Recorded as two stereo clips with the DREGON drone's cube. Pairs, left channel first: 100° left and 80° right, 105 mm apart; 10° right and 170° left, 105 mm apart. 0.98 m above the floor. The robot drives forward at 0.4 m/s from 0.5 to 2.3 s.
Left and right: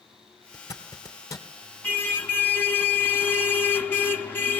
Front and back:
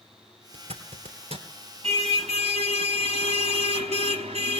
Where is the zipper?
160° left, 3 m.